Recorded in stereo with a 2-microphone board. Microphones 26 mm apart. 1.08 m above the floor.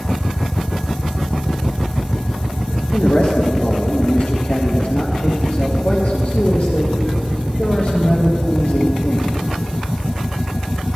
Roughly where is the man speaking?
Left.